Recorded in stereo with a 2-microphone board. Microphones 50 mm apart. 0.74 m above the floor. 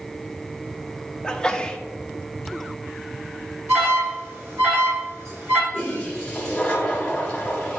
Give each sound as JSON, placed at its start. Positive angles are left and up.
{"t": 1.2, "sound": "a sneeze", "side_deg": 15, "distance_m": 0.8}
{"t": 3.7, "sound": "an alarm", "side_deg": -55, "distance_m": 3.0}
{"t": 5.7, "sound": "a toilet flushing", "side_deg": 20, "distance_m": 2.0}